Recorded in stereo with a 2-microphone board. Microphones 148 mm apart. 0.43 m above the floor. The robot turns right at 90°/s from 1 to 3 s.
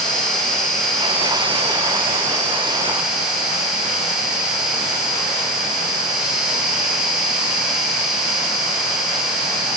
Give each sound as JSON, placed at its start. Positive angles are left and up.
{"t": 0.0, "sound": "an insect", "azimuth_deg": 175, "distance_m": 1.8}